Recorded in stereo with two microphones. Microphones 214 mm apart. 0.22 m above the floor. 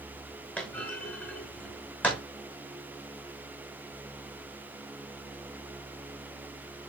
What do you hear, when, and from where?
0.6 s a clunk: 5° left (ahead or behind), 3.5 m